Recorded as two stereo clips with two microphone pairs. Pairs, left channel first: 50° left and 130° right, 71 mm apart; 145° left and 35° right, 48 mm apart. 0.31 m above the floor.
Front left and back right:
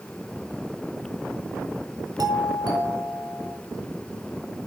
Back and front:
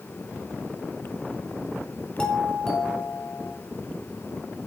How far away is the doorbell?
About 4 m.